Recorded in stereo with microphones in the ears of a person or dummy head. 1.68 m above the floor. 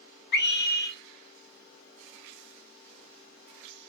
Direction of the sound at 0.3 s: 55° left (ahead or behind).